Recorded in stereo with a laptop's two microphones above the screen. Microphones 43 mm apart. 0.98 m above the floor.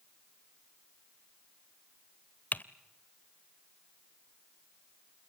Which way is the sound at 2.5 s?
40° left (ahead or behind).